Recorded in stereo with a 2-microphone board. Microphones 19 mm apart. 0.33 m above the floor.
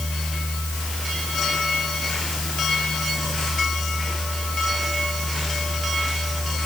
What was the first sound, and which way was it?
Only background noise.